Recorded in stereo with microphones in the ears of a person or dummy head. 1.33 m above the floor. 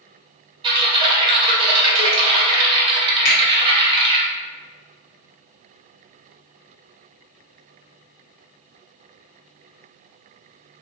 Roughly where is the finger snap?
Left.